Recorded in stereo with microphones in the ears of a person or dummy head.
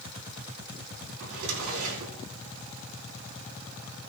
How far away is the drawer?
About 4 m.